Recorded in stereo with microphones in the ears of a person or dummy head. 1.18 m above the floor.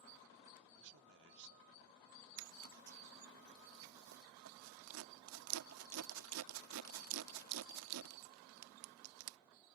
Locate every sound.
0.8 s a man speaking: 65° right (ahead or behind)
2.4 s a zipper: 80° right